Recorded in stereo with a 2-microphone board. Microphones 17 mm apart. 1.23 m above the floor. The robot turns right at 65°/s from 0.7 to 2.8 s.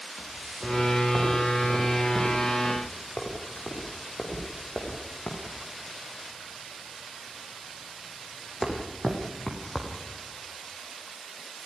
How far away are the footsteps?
About 8 m.